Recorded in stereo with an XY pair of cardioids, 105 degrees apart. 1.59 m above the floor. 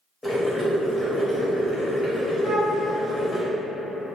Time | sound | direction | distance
0.2 | boiling | 15° left | 0.9 m
2.4 | a flute | 15° left | 1.0 m